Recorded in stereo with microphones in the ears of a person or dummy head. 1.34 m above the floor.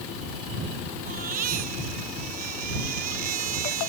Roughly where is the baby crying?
Right.